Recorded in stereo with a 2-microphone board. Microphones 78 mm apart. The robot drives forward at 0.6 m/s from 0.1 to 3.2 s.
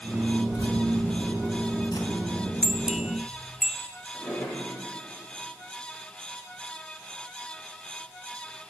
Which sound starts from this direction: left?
Keys jangling, at 0.5 s.